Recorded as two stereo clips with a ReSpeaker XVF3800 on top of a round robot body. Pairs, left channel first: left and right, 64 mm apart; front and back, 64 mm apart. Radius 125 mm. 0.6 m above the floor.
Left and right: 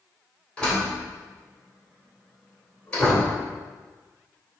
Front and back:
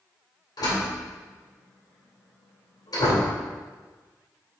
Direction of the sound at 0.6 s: 15° left.